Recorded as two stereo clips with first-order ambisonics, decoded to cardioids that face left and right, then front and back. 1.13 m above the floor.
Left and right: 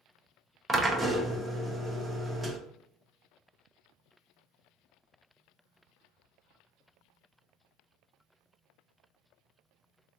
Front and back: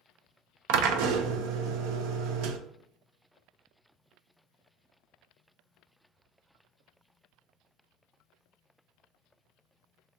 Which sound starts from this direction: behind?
A drill, at 0.7 s.